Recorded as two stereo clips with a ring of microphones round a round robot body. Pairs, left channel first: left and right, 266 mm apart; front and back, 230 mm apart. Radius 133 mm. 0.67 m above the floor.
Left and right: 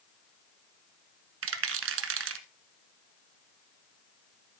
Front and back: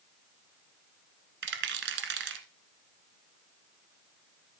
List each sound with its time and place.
1.4 s a rattle: 130° right, 1.3 m